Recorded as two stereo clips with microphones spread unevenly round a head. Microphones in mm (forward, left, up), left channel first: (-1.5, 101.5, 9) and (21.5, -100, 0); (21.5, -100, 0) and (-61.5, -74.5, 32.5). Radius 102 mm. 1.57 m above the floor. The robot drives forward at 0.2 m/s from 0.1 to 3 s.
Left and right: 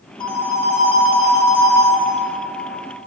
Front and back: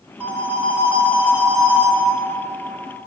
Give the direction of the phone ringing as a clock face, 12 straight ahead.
7 o'clock.